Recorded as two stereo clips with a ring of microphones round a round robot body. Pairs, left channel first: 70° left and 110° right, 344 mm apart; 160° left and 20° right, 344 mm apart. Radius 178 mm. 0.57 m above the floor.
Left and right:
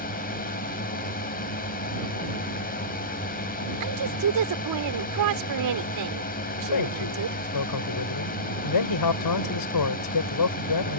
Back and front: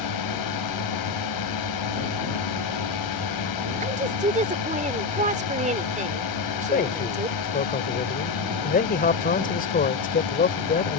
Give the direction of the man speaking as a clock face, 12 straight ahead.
9 o'clock.